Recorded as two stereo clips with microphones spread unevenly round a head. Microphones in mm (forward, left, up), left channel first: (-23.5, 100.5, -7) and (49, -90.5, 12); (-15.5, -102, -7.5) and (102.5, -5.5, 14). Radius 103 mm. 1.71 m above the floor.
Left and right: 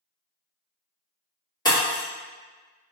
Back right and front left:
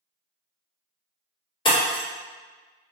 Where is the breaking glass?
175° left, 1.9 m.